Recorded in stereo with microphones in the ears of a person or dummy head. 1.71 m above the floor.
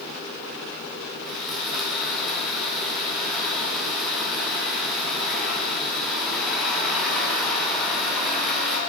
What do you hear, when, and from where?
1.2 s sawing: 5° left (ahead or behind), 2.5 m